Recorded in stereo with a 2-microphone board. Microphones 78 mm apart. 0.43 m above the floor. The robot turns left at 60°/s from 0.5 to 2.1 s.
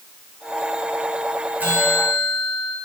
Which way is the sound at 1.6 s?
155° right.